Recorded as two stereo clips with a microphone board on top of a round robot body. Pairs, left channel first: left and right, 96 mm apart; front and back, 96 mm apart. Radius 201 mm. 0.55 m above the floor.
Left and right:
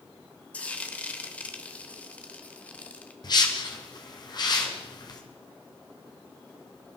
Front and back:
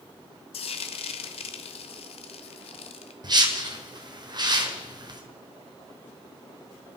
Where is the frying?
15° left, 0.8 m.